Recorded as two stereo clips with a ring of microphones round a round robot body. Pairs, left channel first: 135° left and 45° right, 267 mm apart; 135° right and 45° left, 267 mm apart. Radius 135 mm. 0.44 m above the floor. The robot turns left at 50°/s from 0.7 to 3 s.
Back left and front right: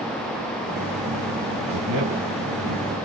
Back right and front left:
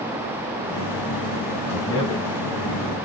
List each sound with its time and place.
1.7 s a man speaking: 50° right, 3.5 m; by 2.9 s 115° right, 3.5 m